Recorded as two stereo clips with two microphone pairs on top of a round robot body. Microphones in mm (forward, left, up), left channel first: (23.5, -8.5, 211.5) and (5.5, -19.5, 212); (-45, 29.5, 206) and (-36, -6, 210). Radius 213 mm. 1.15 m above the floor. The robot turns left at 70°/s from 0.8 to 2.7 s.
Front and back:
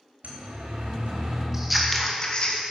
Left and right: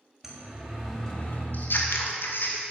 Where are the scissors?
140° left, 2.5 m; by 2.6 s 60° left, 2.5 m.